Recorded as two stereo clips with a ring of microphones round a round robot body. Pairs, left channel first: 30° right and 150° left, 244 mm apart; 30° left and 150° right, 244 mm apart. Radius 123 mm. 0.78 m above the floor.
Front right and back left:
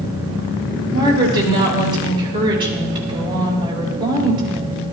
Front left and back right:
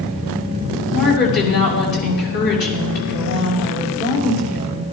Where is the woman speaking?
80° left, 5.5 m.